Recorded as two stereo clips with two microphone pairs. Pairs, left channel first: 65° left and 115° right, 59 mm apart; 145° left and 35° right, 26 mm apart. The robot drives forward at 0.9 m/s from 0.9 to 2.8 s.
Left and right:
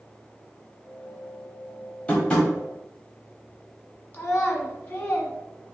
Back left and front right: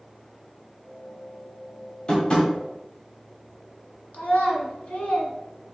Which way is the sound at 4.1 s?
125° left.